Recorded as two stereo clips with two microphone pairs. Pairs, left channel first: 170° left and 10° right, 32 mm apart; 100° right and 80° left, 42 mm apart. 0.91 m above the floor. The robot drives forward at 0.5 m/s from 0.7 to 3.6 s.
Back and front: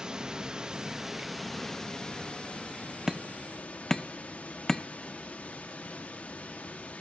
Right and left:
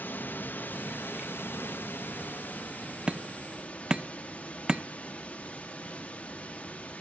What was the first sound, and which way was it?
Running water, 75° right.